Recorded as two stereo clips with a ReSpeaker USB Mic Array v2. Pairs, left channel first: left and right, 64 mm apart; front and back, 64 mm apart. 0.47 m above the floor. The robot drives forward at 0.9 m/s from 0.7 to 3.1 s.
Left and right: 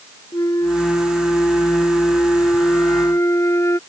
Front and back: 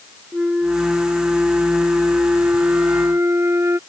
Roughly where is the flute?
Left.